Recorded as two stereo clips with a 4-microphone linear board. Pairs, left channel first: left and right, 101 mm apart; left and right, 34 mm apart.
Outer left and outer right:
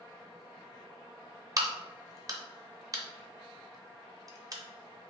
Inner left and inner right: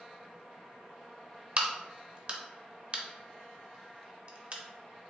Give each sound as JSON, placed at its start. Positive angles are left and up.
{"t": 1.6, "sound": "a crack", "side_deg": -40, "distance_m": 0.6}